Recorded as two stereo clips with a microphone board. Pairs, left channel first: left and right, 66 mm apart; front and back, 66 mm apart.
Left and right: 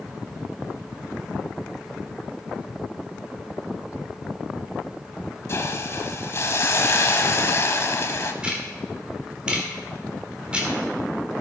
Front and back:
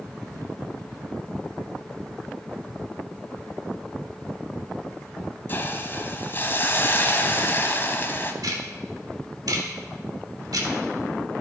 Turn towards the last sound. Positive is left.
turn(degrees=-165)